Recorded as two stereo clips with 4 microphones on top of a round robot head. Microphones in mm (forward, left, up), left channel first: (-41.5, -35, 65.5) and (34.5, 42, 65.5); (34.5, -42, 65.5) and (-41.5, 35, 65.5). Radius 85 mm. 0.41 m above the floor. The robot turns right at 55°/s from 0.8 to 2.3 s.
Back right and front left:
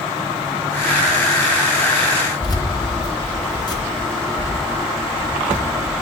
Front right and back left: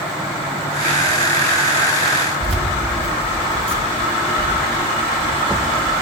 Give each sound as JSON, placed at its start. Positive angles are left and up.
{"t": 2.4, "sound": "keys jangling", "azimuth_deg": 170, "distance_m": 4.0}